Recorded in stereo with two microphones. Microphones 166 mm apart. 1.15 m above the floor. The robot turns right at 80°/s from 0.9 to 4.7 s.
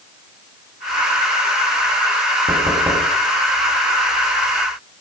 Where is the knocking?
55° right, 6.5 m; by 3.1 s straight ahead, 6.5 m.